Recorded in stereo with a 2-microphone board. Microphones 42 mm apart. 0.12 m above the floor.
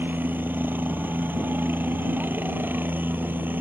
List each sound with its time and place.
0.0 s a helicopter: 50° right (ahead or behind)